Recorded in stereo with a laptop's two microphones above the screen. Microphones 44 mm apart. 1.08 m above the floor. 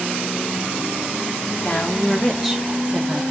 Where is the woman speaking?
45° left (ahead or behind), 0.8 m; by 3.2 s 30° right (ahead or behind), 1.2 m.